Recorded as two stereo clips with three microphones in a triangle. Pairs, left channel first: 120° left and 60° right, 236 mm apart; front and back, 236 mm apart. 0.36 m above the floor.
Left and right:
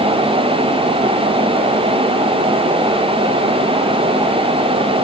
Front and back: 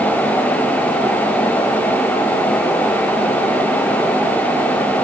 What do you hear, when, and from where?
Only background noise.